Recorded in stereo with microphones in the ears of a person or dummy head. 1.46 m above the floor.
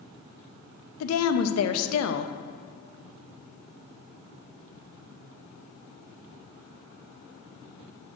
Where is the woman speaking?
80° left, 0.7 m.